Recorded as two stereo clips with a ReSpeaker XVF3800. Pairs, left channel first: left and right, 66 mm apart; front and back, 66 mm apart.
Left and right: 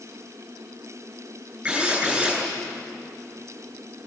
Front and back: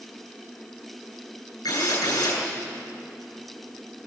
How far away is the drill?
About 9 m.